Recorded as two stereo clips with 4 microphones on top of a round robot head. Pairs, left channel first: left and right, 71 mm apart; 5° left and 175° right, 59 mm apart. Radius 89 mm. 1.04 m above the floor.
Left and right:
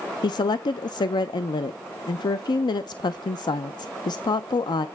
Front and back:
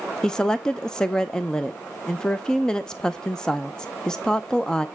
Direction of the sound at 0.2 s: 80° left.